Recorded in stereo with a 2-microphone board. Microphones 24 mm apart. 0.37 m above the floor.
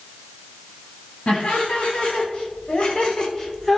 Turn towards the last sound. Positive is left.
turn(degrees=15)  # may be behind; listen again after turning